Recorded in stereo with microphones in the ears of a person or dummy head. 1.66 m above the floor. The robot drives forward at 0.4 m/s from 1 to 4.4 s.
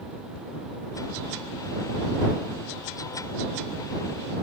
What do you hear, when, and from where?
Only background noise.